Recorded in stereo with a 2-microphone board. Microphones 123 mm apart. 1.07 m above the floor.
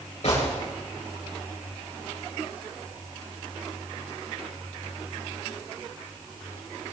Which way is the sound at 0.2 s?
65° left (ahead or behind).